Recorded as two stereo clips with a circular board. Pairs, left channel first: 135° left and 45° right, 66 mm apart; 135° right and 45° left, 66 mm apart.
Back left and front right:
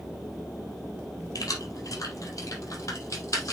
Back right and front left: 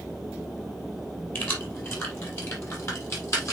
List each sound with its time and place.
1.4 s keys jangling: 170° left, 4 m; by 3.5 s straight behind, 4.5 m